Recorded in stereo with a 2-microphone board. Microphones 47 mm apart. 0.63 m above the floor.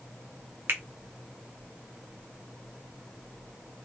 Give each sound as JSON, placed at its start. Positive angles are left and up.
{"t": 0.7, "sound": "a finger snap", "side_deg": -55, "distance_m": 0.9}